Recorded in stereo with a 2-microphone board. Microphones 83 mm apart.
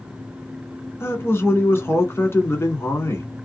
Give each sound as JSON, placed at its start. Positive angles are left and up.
{"t": 1.0, "sound": "a man speaking", "side_deg": 30, "distance_m": 1.3}